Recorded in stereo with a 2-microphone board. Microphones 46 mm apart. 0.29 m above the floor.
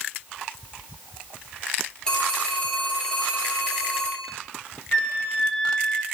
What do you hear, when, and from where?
2.1 s a phone ringing: 20° left (ahead or behind), 4.5 m
4.9 s a flute: 20° left (ahead or behind), 1.3 m